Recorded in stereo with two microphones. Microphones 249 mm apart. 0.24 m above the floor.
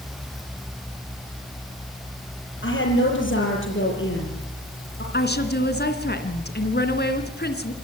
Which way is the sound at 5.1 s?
40° left (ahead or behind).